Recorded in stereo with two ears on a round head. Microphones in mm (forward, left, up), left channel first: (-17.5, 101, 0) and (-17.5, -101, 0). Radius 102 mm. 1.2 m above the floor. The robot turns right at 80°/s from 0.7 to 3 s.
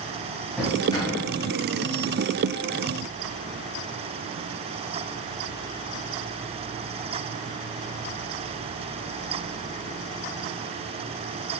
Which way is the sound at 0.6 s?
Centre (ahead or behind).